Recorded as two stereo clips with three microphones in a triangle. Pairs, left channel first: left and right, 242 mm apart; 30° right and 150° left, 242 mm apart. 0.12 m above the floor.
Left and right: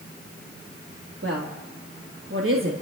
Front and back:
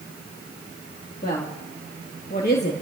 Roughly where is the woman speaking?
Right.